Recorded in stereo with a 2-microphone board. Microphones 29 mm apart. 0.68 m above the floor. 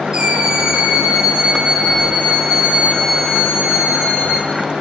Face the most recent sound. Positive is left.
turn(degrees=-15)  # may be behind; listen again after turning